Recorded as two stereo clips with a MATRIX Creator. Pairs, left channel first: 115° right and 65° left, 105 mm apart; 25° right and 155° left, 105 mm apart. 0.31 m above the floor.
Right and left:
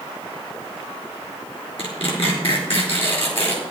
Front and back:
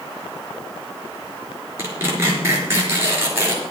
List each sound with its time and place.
1.8 s tearing paper: 140° right, 4 m